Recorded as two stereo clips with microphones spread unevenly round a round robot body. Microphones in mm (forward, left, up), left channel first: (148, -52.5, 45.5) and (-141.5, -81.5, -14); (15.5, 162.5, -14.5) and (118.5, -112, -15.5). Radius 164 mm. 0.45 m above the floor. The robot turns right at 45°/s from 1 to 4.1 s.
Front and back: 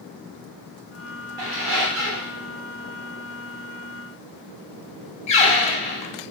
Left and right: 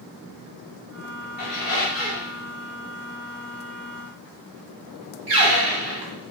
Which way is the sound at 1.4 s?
175° left.